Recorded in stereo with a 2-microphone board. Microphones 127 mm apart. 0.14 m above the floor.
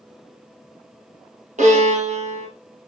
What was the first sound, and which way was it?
A violin, 70° right (ahead or behind).